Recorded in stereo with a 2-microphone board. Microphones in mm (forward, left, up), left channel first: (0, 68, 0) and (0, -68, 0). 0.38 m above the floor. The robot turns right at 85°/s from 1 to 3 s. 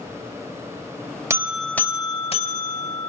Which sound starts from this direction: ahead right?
A buzzer, at 1.3 s.